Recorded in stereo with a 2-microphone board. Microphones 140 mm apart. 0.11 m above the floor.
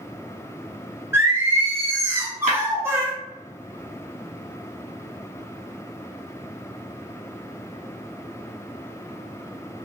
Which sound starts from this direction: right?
Breaking glass, at 2.5 s.